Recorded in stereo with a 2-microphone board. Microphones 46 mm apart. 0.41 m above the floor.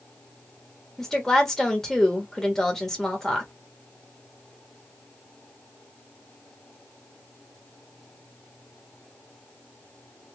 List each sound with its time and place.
1.0 s a woman speaking: 10° left (ahead or behind), 1.1 m